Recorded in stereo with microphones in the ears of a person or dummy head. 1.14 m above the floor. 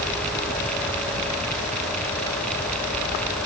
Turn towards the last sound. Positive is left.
No sound to turn to.